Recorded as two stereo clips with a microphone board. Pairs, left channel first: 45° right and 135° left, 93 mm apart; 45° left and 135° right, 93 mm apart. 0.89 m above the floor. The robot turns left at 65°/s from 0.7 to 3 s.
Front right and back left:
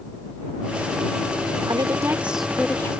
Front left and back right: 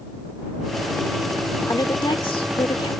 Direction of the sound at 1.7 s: 95° left.